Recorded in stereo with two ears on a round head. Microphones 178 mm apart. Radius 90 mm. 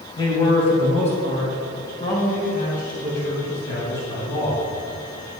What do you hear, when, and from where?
0.2 s a man speaking: 20° left (ahead or behind), 2.5 m; by 4.7 s 65° left (ahead or behind), 4 m